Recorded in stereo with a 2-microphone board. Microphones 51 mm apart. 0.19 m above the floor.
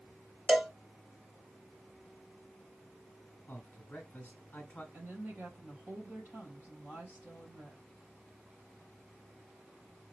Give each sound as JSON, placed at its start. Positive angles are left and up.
{"t": 0.5, "sound": "a cowbell", "side_deg": -15, "distance_m": 0.9}
{"t": 3.5, "sound": "a man speaking", "side_deg": 30, "distance_m": 1.8}
{"t": 4.9, "sound": "a woman speaking", "side_deg": -35, "distance_m": 4.0}